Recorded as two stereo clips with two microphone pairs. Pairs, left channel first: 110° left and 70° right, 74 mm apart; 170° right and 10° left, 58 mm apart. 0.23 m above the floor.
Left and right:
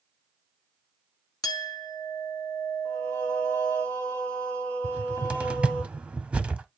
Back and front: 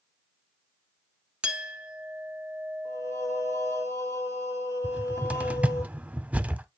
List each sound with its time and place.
1.4 s a clink: 80° left, 1.1 m
2.9 s singing: straight behind, 5.5 m
4.8 s a cupboard door: 10° right, 0.6 m